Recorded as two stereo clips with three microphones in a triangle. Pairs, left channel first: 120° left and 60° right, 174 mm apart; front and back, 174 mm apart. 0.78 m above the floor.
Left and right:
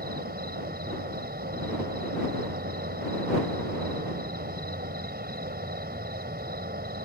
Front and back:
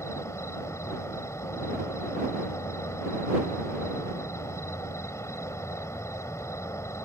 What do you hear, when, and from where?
0.0 s an insect: 75° right